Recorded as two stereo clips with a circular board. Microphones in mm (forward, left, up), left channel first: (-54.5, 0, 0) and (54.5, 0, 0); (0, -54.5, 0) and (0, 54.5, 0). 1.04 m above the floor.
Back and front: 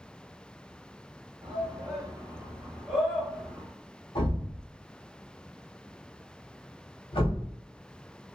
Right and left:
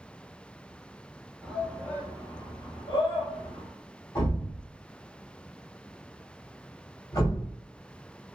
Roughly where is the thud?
Behind right.